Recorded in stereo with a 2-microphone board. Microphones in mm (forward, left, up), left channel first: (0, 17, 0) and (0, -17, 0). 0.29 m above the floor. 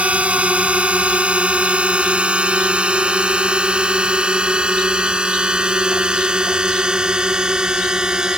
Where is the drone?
40° right (ahead or behind); by 8.4 s 25° right (ahead or behind).